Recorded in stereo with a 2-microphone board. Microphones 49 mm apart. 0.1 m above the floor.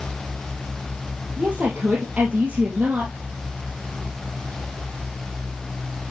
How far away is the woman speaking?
About 2.5 m.